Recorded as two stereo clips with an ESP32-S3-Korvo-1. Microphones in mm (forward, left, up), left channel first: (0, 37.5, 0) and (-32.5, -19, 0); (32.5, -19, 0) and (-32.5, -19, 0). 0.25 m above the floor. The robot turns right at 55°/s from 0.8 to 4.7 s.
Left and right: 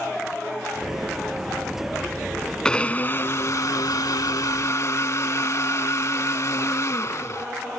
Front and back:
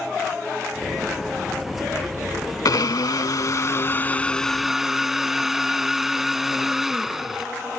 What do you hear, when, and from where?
2.6 s a blender: 15° right; by 7.5 s 95° left